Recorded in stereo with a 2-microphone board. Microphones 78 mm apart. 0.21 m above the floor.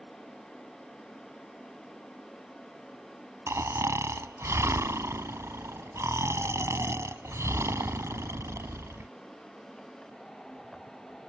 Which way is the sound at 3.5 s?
40° right (ahead or behind).